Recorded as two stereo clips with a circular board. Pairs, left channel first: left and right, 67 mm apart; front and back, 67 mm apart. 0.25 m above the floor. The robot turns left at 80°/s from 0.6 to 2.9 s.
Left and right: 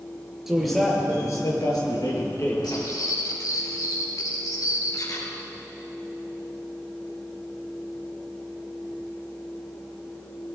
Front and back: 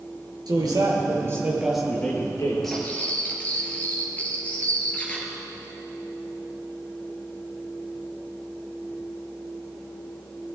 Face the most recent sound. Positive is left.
turn(degrees=65)